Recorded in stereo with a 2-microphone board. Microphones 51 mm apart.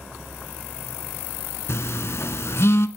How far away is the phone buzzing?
About 0.5 m.